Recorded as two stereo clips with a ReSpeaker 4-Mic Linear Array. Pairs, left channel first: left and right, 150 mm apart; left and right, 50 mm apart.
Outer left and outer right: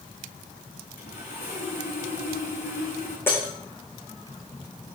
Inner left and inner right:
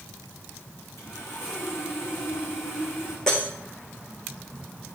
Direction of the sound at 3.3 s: 15° left (ahead or behind).